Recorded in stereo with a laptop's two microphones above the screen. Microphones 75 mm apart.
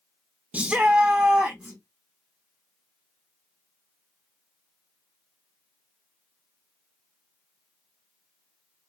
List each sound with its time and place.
0.5 s a shout: 25° right (ahead or behind), 0.6 m; by 1.8 s 15° right (ahead or behind), 2.5 m